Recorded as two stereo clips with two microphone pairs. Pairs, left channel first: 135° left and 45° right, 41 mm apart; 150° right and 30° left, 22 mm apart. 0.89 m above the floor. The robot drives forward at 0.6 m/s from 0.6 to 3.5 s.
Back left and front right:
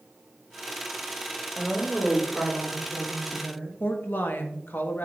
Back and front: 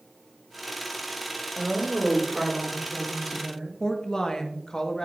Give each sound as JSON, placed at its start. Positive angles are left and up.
{"t": 1.6, "sound": "a woman speaking", "azimuth_deg": 20, "distance_m": 3.5}
{"t": 3.8, "sound": "a woman speaking", "azimuth_deg": 160, "distance_m": 1.1}